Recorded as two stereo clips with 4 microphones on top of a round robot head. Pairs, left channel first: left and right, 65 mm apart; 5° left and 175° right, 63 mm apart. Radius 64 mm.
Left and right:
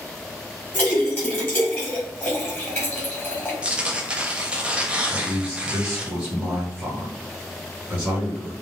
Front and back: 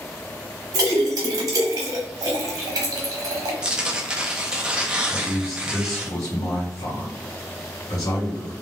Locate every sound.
0.7 s a splash: 165° left, 1.0 m
3.6 s tearing paper: 130° right, 0.6 m
5.1 s a man speaking: 10° right, 1.3 m